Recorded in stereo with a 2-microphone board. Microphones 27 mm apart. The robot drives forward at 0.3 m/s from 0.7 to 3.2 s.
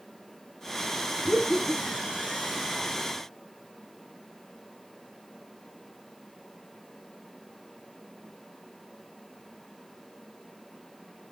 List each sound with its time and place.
1.2 s laughter: 15° right (ahead or behind), 1.0 m; by 2.2 s 10° right (ahead or behind), 1.1 m